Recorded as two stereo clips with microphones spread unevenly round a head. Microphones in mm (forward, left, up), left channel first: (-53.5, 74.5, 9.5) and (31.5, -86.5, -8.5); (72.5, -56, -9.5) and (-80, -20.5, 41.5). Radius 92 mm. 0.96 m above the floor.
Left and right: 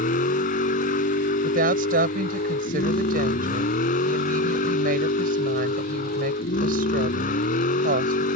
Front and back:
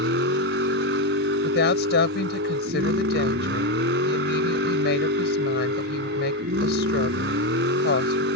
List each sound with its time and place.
0.0 s a vehicle: 160° left
1.4 s a woman speaking: 20° right